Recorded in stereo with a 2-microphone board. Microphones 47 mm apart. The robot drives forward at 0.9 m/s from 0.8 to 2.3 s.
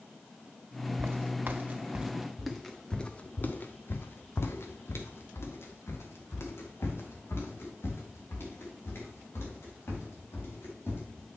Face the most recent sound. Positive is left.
turn(degrees=65)  # may be behind; listen again after turning